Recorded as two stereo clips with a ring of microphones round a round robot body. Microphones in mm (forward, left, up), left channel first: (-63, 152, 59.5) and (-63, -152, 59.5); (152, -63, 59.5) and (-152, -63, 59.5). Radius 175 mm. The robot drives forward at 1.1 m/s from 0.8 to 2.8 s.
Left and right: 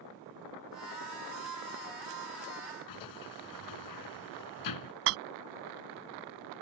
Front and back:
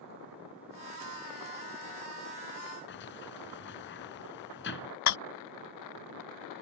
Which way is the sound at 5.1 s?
40° right.